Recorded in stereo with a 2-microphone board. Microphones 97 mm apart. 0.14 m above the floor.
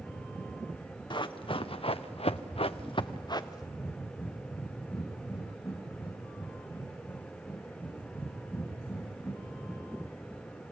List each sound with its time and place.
1.1 s running footsteps: 50° left (ahead or behind), 1.2 m; by 3.7 s 35° left (ahead or behind), 1.1 m
3.8 s breathing: 20° left (ahead or behind), 7.5 m